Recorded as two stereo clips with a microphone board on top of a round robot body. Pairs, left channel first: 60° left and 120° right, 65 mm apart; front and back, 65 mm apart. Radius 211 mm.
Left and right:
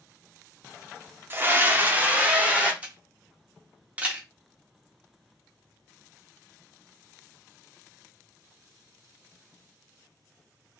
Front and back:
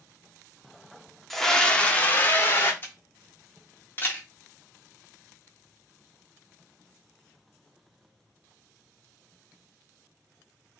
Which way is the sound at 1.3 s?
85° right.